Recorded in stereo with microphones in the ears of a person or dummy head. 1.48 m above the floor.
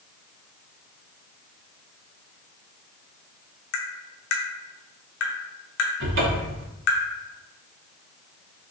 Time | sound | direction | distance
3.7 | tapping | 60° left (ahead or behind) | 0.7 m
6.0 | a cupboard door | 55° right (ahead or behind) | 0.7 m